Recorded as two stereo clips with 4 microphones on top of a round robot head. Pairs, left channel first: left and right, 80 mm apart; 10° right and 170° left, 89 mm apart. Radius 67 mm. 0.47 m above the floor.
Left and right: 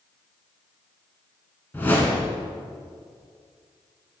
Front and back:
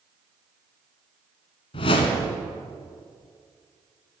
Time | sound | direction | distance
1.7 | a whoosh | 15° left | 1.0 m